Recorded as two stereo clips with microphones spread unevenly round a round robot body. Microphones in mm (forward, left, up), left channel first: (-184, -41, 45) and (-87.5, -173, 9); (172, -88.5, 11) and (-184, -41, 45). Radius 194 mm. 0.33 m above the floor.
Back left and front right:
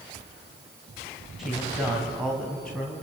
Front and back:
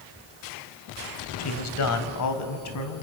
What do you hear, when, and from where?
1.4 s a man speaking: 25° left, 1.9 m; by 3.0 s 35° left, 3 m